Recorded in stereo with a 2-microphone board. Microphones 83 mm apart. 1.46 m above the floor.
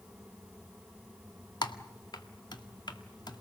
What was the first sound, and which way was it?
Typing on a keyboard, 60° left (ahead or behind).